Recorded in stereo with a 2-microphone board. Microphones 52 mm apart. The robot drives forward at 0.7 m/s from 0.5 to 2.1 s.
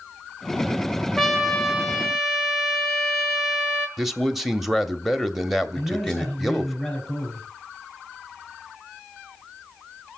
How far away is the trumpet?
About 1.1 m.